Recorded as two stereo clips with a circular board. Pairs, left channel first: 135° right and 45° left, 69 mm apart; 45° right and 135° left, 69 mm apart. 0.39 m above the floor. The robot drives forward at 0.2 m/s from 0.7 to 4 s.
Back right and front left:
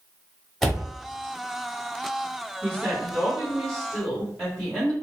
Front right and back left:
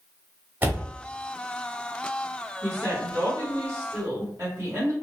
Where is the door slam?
145° left, 0.5 m; by 0.9 s 150° left, 0.5 m.